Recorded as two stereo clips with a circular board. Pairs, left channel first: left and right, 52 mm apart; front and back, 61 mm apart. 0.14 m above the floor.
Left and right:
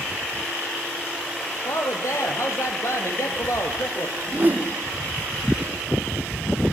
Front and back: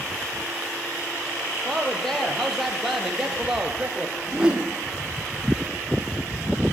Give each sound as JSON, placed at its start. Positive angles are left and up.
{"t": 1.6, "sound": "a woman speaking", "azimuth_deg": 85, "distance_m": 4.0}
{"t": 4.2, "sound": "a whoosh", "azimuth_deg": -110, "distance_m": 1.7}